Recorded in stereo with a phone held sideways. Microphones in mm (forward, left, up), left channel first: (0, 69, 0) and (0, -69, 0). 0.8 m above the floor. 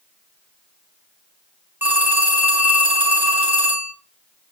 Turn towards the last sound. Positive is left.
turn(degrees=-15)  # may be behind; listen again after turning